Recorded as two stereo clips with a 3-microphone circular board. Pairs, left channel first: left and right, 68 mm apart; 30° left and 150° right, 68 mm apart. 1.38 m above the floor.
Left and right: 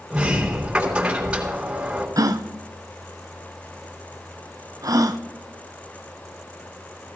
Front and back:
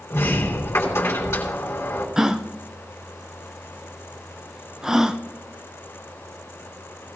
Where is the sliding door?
15° right, 4 m.